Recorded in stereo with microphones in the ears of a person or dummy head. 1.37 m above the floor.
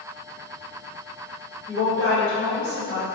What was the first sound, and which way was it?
A woman speaking, 60° right (ahead or behind).